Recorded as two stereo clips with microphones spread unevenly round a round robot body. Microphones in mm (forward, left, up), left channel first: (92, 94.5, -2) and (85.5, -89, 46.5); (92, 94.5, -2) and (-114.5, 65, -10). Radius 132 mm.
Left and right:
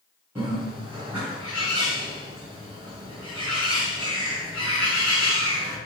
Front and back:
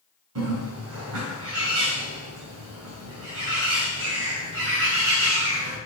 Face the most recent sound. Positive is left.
turn(degrees=-175)